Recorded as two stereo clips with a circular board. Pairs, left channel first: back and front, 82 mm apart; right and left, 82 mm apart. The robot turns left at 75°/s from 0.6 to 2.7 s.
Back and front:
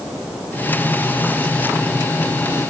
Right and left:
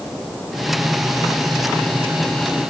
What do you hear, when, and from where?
Only background noise.